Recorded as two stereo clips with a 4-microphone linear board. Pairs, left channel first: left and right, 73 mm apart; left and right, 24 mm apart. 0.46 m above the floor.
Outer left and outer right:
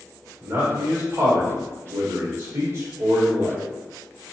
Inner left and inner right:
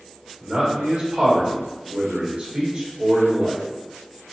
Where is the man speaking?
45° right (ahead or behind), 1.6 m.